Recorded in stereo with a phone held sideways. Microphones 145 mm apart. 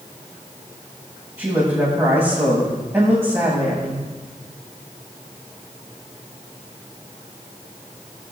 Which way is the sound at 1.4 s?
20° right (ahead or behind).